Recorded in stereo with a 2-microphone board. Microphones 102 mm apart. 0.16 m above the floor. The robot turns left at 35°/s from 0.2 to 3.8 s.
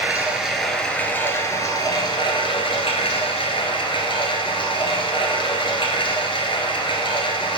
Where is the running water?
165° right, 1.0 m; by 7.6 s 70° left, 1.0 m.